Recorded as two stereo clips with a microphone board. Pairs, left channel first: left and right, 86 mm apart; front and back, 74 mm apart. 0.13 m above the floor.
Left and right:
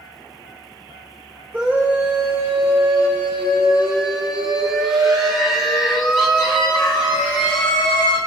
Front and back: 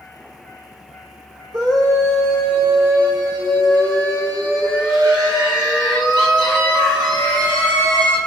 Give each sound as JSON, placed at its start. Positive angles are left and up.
{"t": 1.5, "sound": "a scream", "azimuth_deg": -160, "distance_m": 7.5}